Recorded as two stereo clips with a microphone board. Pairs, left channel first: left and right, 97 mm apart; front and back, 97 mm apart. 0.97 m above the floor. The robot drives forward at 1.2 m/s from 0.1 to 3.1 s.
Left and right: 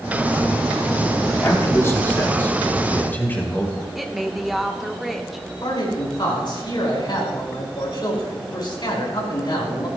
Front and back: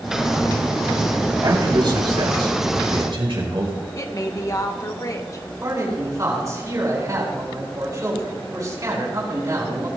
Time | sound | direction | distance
1.4 | a man speaking | 145° left | 2.5 m
4.0 | a woman speaking | straight ahead | 0.9 m
5.6 | a man speaking | 125° left | 4.5 m